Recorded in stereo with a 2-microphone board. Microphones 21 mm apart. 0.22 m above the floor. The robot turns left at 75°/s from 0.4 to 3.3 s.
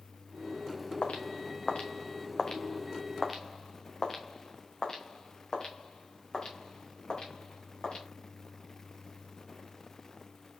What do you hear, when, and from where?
1.0 s footsteps: 85° left, 1.7 m; by 8.0 s 45° left (ahead or behind), 5 m